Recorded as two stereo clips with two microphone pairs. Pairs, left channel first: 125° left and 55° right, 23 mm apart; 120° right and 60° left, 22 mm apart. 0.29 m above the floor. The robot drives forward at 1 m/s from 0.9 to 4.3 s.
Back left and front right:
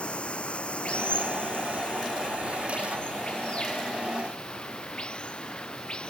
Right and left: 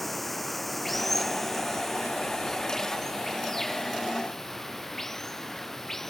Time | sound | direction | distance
0.0 | running water | 155° left | ?